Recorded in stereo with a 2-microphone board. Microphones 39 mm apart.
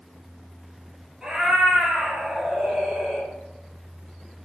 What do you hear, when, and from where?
1.2 s a cat meowing: 15° right (ahead or behind), 1.1 m